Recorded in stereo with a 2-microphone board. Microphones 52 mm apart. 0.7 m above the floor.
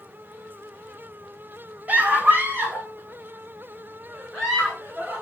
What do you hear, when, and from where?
1.9 s a scream: 30° right (ahead or behind), 0.7 m; by 5.2 s 35° right (ahead or behind), 3 m